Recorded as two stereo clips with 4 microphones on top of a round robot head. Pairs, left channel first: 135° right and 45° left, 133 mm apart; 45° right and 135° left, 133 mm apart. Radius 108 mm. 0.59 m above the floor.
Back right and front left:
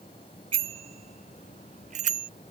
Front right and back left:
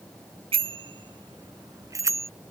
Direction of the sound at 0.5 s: 90° left.